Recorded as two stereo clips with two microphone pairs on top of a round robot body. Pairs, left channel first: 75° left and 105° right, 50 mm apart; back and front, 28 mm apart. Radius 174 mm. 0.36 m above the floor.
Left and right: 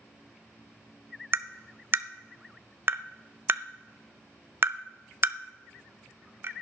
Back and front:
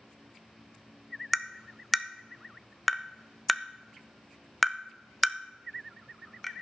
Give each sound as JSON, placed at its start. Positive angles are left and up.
{"t": 1.3, "sound": "tapping", "azimuth_deg": -85, "distance_m": 0.7}